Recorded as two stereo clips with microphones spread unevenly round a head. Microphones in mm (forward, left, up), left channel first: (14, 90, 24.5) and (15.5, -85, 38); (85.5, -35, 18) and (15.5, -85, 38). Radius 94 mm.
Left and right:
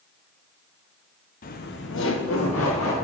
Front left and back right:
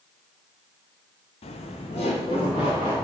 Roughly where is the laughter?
Ahead left.